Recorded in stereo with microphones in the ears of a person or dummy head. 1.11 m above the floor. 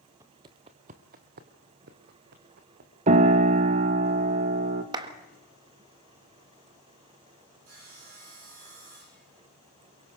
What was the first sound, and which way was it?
Footsteps, 15° right (ahead or behind).